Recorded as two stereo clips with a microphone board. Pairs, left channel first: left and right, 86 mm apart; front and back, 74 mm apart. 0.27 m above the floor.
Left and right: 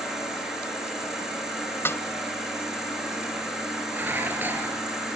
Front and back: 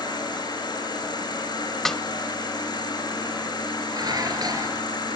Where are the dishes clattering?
155° right, 3.5 m.